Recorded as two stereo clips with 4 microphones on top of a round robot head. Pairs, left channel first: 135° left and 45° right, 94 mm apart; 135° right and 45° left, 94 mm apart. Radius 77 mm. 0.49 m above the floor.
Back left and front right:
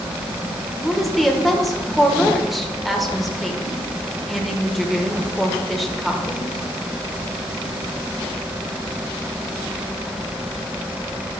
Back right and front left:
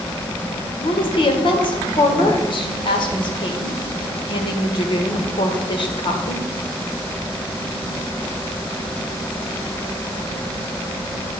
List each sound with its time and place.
0.8 s a woman speaking: 135° right, 1.5 m